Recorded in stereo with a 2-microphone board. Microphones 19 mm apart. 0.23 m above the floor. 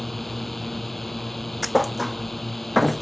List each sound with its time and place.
0.0 s a drone: 5° left (ahead or behind)
1.6 s a thud: centre (ahead or behind)